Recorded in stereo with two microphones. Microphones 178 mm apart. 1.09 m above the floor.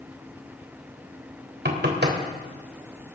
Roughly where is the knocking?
Right.